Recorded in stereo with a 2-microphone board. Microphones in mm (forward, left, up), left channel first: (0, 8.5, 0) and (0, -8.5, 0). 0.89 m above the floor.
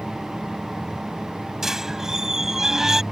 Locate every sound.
1.6 s a squeak: 20° right (ahead or behind)